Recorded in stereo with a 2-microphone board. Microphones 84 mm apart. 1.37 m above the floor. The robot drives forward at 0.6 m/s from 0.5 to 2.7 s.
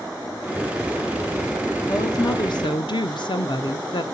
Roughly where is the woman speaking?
Left.